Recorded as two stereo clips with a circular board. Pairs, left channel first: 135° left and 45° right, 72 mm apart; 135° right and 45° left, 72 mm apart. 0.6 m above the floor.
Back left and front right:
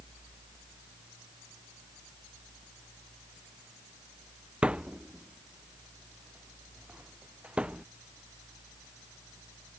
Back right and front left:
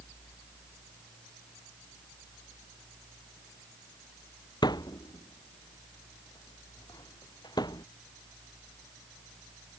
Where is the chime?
I don't hear a chime.